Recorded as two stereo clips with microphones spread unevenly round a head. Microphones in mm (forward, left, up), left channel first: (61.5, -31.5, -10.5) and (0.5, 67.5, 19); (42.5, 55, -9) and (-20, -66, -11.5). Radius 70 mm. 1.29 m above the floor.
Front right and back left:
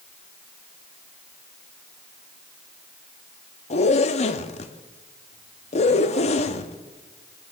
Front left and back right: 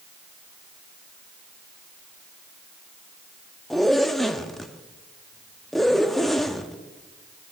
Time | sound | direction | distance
3.7 | a zipper | 25° right | 0.9 m